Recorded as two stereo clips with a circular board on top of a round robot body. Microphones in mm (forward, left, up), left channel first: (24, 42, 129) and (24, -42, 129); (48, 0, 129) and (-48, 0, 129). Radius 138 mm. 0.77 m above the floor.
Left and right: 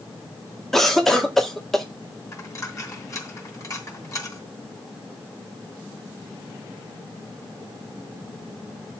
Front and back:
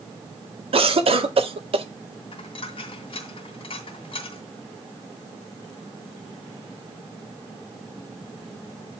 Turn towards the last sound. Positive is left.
turn(degrees=35)